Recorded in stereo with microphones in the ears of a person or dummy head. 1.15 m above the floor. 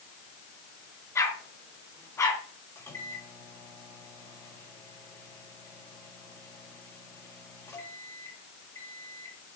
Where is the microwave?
10° left (ahead or behind), 5 m.